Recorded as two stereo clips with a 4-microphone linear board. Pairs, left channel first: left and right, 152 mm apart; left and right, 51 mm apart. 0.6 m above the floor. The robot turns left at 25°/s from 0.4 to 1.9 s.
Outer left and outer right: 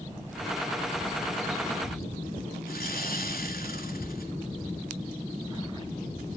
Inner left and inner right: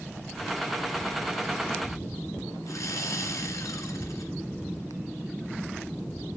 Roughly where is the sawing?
Left.